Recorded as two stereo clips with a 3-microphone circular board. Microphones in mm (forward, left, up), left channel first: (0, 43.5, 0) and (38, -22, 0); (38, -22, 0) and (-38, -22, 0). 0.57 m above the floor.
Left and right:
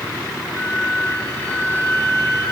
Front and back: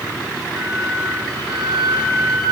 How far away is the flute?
About 3 m.